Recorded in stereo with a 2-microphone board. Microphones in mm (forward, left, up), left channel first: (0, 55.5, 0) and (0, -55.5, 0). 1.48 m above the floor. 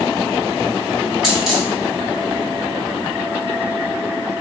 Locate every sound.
1.2 s a dropped coin: 5° right (ahead or behind), 1.1 m